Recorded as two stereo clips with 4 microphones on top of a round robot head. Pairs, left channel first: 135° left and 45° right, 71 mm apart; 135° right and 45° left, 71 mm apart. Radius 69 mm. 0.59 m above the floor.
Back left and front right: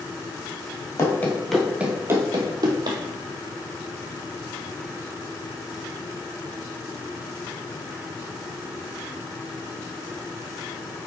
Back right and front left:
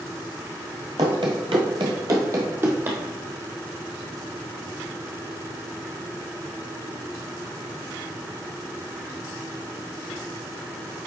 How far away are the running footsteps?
About 0.9 m.